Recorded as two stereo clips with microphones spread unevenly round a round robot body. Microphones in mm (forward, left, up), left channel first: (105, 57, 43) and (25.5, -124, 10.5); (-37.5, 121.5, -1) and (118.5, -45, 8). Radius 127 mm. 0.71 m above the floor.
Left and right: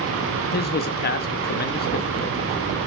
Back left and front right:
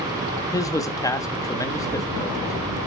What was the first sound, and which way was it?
A man speaking, 70° left.